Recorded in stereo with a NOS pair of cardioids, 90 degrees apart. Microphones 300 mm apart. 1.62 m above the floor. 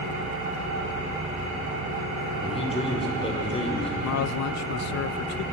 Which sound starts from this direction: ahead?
A man speaking, at 2.4 s.